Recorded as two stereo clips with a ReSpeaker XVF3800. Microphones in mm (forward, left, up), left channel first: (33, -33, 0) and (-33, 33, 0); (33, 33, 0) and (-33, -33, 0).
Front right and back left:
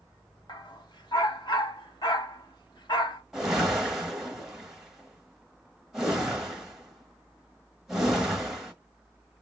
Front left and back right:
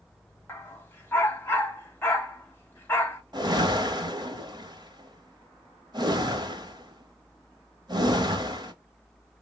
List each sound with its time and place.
0.5 s a dog barking: 15° right, 0.7 m
3.3 s a whoosh: 140° right, 0.8 m